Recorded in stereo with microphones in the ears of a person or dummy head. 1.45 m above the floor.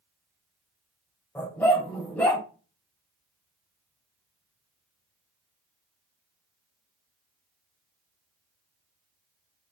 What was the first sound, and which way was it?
A dog barking, 10° left (ahead or behind).